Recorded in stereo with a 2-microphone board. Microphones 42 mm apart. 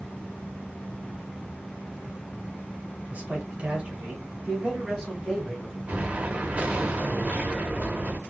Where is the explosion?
35° right (ahead or behind), 0.9 m.